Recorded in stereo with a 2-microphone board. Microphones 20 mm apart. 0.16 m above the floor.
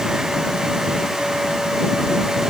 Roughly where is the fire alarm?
I don't hear a fire alarm.